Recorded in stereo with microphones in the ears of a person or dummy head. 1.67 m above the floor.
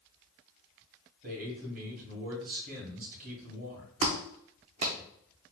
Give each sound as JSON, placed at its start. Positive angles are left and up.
{"t": 1.2, "sound": "a man speaking", "side_deg": -55, "distance_m": 1.8}
{"t": 4.0, "sound": "a clap", "side_deg": -35, "distance_m": 0.7}